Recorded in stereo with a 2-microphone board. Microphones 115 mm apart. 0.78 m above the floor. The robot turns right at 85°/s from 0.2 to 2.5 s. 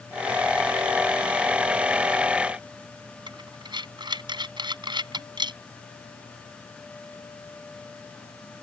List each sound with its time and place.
3.3 s breathing: 45° right (ahead or behind)